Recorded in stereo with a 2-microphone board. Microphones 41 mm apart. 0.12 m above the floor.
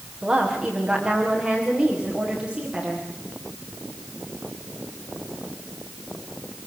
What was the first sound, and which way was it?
A woman speaking, 10° right (ahead or behind).